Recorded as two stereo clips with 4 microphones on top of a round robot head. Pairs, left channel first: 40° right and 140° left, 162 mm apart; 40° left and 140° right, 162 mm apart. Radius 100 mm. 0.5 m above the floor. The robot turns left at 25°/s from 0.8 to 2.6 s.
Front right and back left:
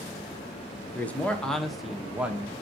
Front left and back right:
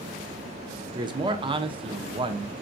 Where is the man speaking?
110° right, 0.7 m; by 2.5 s 150° right, 0.7 m.